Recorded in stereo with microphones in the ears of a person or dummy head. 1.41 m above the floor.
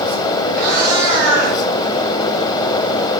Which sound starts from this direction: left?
A cat meowing, at 0.5 s.